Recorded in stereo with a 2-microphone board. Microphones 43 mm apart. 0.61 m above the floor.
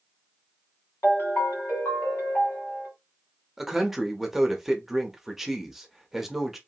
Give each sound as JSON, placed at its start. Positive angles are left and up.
{"t": 1.0, "sound": "a ringtone", "side_deg": 75, "distance_m": 1.5}
{"t": 3.6, "sound": "a man speaking", "side_deg": -5, "distance_m": 0.6}